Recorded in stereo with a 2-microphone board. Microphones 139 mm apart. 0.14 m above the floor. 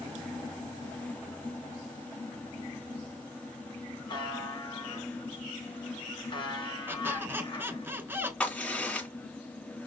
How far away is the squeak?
About 0.9 m.